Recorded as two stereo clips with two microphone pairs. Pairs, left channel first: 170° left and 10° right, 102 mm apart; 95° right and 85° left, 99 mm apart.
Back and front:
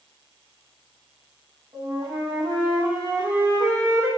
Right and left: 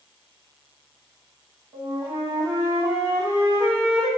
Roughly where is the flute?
Ahead left.